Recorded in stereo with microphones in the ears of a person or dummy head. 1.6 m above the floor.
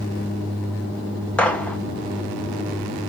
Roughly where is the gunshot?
Centre.